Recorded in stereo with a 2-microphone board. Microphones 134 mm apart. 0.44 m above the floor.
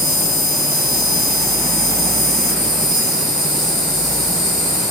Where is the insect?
Centre (ahead or behind), 1.4 m.